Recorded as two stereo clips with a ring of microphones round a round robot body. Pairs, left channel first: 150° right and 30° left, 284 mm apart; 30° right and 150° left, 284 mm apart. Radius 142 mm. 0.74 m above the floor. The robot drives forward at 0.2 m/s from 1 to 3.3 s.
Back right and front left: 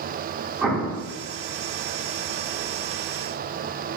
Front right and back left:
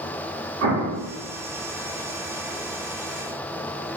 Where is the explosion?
115° left, 1.2 m.